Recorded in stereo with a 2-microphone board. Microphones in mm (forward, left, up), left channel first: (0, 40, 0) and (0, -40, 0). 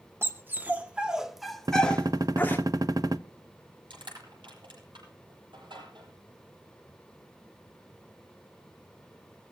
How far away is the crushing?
About 9.5 m.